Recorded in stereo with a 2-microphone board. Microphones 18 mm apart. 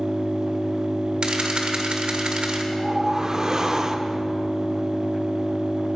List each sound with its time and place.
0.0 s an engine running: 45° right (ahead or behind), 3.5 m
1.2 s a camera shutter: 60° right (ahead or behind), 1.9 m
2.7 s a whoosh: 30° right (ahead or behind), 0.7 m